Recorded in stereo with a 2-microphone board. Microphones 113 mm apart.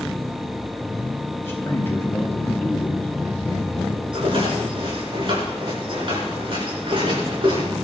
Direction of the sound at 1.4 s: 25° left (ahead or behind).